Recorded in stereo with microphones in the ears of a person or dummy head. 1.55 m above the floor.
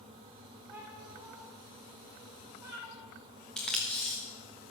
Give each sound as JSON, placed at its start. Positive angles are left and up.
{"t": 0.7, "sound": "a cat meowing", "side_deg": -5, "distance_m": 2.5}
{"t": 3.6, "sound": "tape being pulled", "side_deg": 5, "distance_m": 0.8}